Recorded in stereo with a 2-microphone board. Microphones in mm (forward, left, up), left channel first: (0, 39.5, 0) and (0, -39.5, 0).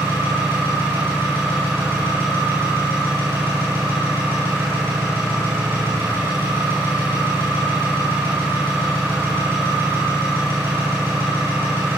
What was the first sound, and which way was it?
An engine running, 30° right (ahead or behind).